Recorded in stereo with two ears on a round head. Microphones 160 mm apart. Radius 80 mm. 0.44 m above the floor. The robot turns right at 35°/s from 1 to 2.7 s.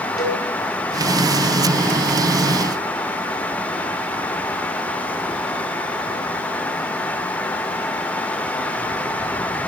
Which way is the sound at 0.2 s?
25° left (ahead or behind).